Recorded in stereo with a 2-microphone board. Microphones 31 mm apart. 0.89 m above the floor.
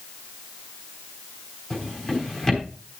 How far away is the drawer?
About 4 m.